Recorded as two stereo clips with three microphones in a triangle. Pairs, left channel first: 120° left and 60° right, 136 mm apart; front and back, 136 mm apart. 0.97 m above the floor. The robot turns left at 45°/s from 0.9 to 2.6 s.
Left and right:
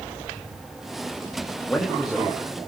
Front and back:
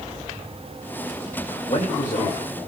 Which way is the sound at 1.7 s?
45° left.